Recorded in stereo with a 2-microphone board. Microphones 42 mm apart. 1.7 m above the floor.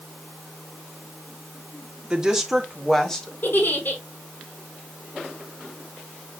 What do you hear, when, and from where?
2.1 s a woman speaking: 20° right (ahead or behind), 1.8 m; by 3.3 s 15° left (ahead or behind), 2.5 m
3.4 s a giggle: 55° left (ahead or behind), 4.5 m